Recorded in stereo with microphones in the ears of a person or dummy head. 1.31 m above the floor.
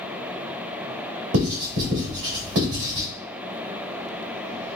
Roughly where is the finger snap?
No finger snap in this recording.